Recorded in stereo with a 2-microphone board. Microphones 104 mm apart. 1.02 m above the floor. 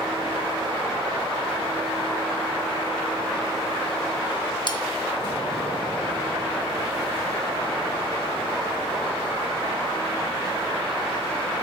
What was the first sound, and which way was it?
Cutlery clinking, 45° left (ahead or behind).